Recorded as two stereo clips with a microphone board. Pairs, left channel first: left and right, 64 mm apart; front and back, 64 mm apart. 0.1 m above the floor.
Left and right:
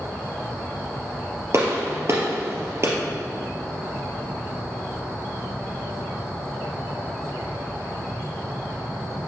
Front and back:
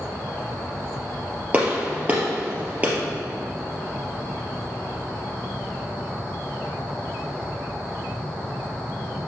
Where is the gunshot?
115° right, 2.5 m.